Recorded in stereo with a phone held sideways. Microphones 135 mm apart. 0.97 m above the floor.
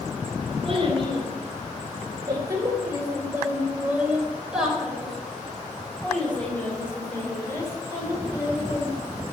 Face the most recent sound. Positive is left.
turn(degrees=25)  # may be behind; listen again after turning